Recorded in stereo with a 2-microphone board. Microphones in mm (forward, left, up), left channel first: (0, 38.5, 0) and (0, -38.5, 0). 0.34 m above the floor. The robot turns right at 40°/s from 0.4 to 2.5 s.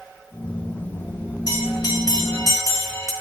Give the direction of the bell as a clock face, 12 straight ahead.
9 o'clock.